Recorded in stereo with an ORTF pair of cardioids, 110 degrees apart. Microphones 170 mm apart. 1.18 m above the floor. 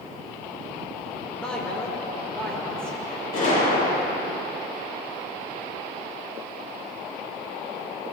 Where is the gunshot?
55° left, 6 m.